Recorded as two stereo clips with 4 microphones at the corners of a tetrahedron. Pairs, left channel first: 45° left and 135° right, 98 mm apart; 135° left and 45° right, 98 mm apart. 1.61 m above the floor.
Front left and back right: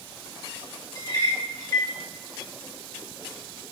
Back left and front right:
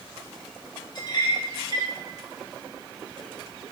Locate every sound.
0.9 s a clink: 95° left, 1.9 m